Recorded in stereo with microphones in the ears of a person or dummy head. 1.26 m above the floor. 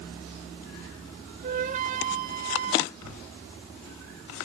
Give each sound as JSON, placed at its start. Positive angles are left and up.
{"t": 1.4, "sound": "a flute", "side_deg": -45, "distance_m": 1.2}
{"t": 3.0, "sound": "a whoosh", "side_deg": -80, "distance_m": 7.5}